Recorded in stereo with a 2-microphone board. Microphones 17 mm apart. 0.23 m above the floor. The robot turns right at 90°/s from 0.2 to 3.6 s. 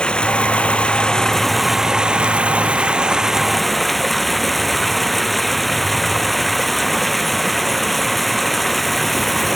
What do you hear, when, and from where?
0.0 s running water: 55° left; by 9.6 s straight ahead